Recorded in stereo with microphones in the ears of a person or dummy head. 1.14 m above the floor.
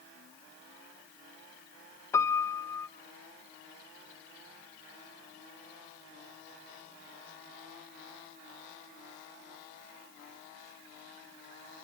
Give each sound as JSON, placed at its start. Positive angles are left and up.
{"t": 2.1, "sound": "a piano", "side_deg": 15, "distance_m": 0.6}